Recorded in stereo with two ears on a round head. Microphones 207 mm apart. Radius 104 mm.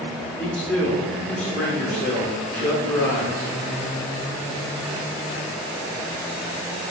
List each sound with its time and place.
0.4 s a man speaking: 5° left (ahead or behind), 1.0 m